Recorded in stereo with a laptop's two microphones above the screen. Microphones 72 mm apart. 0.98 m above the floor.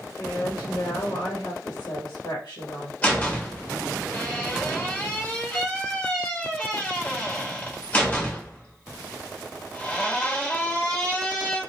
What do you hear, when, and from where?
0.2 s a woman speaking: 70° left (ahead or behind), 1.3 m
3.0 s a door slam: 20° left (ahead or behind), 1.4 m